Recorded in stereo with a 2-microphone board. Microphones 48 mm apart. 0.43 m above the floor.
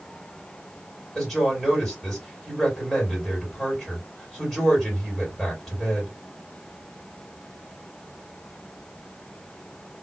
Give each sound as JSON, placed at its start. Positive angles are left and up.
{"t": 1.1, "sound": "a woman speaking", "side_deg": 0, "distance_m": 2.5}